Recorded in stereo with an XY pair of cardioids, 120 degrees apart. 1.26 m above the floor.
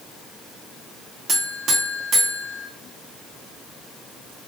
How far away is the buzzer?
About 0.8 m.